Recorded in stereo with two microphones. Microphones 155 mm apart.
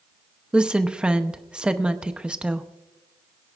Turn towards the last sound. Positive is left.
turn(degrees=-5)  # may be behind; listen again after turning